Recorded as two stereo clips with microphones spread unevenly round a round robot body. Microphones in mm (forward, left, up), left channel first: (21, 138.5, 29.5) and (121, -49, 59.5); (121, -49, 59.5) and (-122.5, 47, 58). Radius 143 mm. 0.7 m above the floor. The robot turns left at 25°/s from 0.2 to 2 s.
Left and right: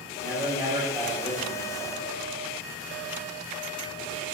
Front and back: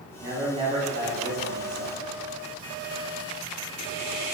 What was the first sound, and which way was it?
A man speaking, 120° right.